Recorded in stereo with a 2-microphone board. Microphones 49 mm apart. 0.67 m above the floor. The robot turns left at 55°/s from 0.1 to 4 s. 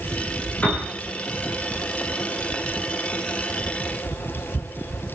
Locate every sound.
0.6 s a piano: 30° left (ahead or behind), 9 m; by 0.9 s 45° left (ahead or behind), 9 m